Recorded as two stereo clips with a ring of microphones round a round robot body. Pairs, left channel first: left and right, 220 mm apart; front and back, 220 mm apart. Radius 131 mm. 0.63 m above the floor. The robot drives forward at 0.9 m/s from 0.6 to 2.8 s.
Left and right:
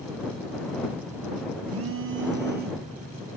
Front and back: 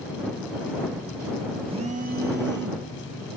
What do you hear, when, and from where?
1.7 s a phone buzzing: 110° right, 1.1 m; by 2.9 s 145° right, 1.8 m